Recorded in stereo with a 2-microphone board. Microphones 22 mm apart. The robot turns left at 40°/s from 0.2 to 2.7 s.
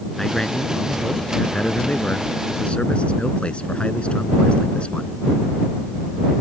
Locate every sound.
0.2 s a man speaking: 160° left; by 5.1 s 60° left